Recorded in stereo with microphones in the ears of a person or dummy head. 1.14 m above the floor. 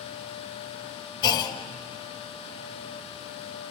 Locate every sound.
1.2 s a clunk: 25° left (ahead or behind), 1.6 m